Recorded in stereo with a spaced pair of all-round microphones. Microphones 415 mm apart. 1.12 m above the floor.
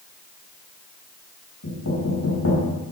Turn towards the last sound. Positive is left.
turn(degrees=50)  # may be behind; listen again after turning